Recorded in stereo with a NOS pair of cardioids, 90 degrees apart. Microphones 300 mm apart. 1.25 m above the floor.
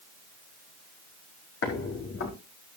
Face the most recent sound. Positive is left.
turn(degrees=50)